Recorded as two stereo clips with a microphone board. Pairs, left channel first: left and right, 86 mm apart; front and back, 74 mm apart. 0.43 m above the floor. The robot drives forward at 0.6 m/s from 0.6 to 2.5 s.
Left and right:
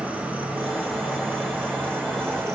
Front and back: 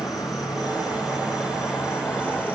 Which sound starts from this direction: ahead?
An insect, at 0.0 s.